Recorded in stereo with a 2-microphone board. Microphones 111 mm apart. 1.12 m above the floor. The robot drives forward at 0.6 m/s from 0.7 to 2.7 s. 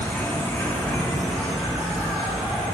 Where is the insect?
15° left (ahead or behind), 0.8 m; by 2.8 s 5° left (ahead or behind), 1.9 m.